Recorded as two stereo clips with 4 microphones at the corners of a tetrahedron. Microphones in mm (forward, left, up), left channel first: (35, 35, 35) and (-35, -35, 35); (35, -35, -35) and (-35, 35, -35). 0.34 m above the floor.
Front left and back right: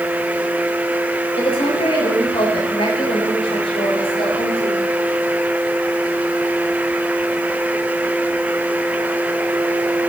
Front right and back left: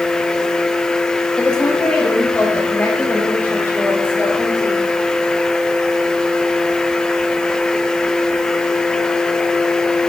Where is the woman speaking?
40° left, 9 m; by 4.8 s 20° left, 7.5 m.